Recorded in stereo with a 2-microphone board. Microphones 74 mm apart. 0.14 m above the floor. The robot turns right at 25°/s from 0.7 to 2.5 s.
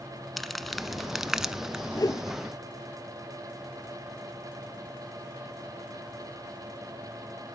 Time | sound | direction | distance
0.4 | crumpling | centre (ahead or behind) | 0.5 m
1.9 | a whoosh | 55° left (ahead or behind) | 0.7 m